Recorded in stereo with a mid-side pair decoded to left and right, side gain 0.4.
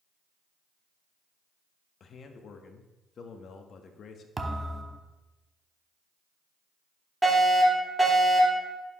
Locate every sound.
2.0 s a man speaking: 60° left, 1.1 m
4.4 s a thud: 25° right, 1.0 m
7.2 s a fire alarm: 15° right, 3.5 m